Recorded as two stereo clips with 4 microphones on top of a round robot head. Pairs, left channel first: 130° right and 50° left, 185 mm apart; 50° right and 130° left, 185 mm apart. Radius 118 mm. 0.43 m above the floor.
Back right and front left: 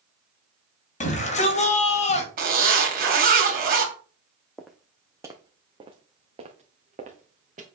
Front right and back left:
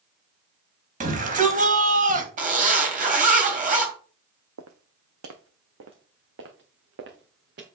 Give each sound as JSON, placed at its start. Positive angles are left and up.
{"t": 1.0, "sound": "a shout", "azimuth_deg": 180, "distance_m": 3.0}
{"t": 2.4, "sound": "a zipper", "azimuth_deg": 85, "distance_m": 3.0}
{"t": 4.6, "sound": "footsteps", "azimuth_deg": 140, "distance_m": 1.1}